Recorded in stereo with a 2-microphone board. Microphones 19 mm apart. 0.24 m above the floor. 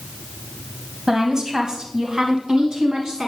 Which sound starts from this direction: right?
A woman speaking, at 1.1 s.